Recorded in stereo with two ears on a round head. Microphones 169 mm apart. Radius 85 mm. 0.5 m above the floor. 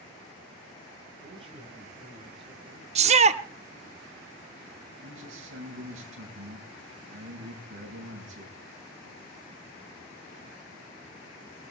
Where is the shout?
35° right (ahead or behind), 0.8 m.